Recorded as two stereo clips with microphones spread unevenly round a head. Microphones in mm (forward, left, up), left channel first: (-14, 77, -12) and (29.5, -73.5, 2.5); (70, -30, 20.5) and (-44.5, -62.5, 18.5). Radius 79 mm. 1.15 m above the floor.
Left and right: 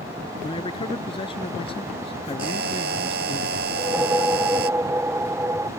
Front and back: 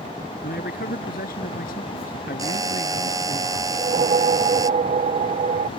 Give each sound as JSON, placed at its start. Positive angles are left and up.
{"t": 0.4, "sound": "a man speaking", "azimuth_deg": 45}
{"t": 2.4, "sound": "a buzzer", "azimuth_deg": -105}
{"t": 3.7, "sound": "a whoosh", "azimuth_deg": -155}